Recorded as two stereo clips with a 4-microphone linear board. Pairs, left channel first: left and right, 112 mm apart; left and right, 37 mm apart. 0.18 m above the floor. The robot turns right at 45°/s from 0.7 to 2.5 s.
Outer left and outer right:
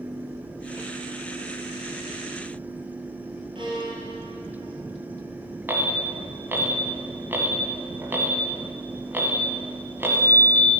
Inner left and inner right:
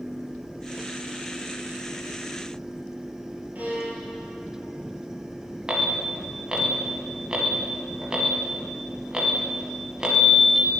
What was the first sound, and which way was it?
A violin, 45° right (ahead or behind).